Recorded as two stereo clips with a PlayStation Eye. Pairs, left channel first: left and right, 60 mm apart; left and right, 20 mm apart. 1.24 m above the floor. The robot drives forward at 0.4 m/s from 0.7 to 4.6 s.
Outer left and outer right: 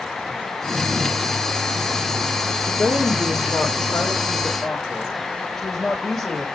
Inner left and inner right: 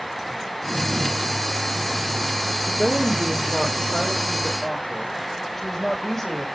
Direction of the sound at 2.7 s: Centre (ahead or behind).